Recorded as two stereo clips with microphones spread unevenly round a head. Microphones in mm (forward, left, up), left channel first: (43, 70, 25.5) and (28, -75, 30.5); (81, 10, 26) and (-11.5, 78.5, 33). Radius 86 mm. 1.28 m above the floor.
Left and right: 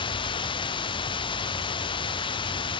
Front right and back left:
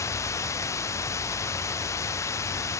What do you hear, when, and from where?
0.0 s running water: 30° left